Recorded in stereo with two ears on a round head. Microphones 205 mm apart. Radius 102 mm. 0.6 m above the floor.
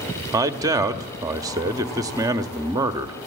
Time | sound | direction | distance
0.3 | a man speaking | 15° right (ahead or behind) | 0.9 m